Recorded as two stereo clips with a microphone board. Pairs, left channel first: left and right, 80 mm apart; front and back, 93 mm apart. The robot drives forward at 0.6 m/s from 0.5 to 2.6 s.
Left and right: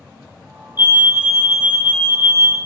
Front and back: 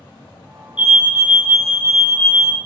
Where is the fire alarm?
120° right, 2 m; by 2.6 s 145° right, 2.5 m.